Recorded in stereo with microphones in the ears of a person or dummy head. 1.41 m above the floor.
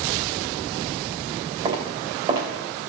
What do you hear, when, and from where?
1.6 s footsteps: 30° right (ahead or behind), 3.5 m